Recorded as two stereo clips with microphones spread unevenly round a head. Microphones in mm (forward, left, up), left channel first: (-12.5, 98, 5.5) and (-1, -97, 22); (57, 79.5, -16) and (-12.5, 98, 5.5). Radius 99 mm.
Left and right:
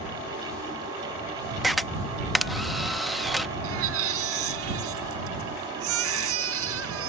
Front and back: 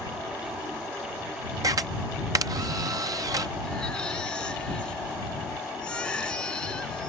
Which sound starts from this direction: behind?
A camera shutter, at 1.6 s.